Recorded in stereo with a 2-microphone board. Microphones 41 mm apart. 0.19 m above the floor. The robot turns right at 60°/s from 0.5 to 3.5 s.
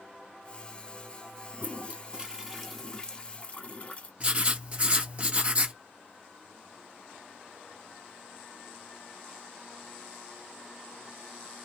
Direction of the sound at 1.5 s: 70° right.